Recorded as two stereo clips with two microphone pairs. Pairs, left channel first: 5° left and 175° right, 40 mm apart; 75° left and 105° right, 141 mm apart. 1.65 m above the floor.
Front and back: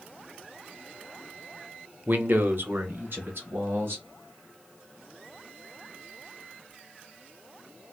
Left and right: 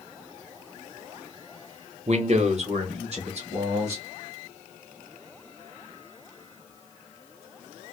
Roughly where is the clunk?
I don't hear a clunk.